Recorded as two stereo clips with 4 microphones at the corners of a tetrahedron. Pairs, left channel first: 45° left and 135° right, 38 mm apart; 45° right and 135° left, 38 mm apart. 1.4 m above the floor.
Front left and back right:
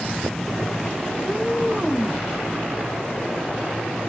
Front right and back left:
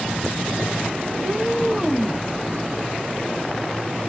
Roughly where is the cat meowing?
Behind left.